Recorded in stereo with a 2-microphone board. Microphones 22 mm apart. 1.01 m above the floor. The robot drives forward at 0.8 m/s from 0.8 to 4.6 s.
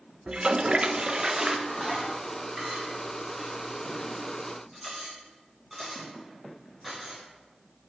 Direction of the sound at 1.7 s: 15° right (ahead or behind).